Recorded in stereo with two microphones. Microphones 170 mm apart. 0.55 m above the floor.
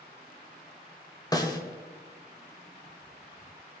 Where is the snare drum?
20° left (ahead or behind), 1.7 m.